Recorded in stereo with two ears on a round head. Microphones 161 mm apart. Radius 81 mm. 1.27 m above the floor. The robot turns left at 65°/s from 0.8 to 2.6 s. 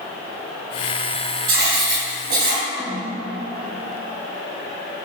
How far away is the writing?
About 3 m.